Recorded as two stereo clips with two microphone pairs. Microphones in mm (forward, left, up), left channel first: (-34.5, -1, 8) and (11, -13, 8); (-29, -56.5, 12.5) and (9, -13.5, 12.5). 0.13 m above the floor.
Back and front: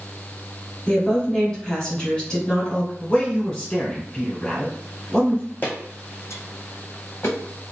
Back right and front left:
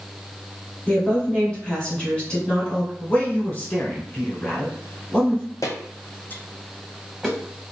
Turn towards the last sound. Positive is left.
turn(degrees=125)